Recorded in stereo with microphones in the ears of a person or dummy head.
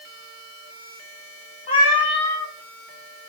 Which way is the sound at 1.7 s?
30° left (ahead or behind).